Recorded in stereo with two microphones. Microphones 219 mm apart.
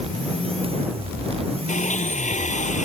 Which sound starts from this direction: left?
A blender, at 1.7 s.